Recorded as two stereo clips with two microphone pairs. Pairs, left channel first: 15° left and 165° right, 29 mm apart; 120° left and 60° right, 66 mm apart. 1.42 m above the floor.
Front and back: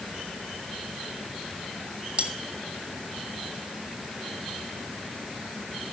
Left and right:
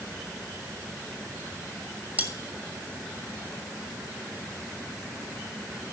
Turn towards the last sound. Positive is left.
turn(degrees=-125)